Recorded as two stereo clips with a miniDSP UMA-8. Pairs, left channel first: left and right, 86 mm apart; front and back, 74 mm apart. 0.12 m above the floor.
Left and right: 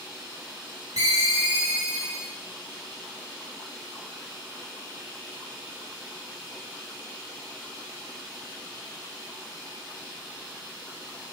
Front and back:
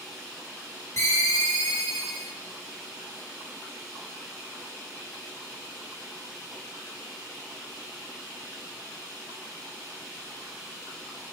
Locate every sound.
1.0 s a ringtone: 40° right, 3 m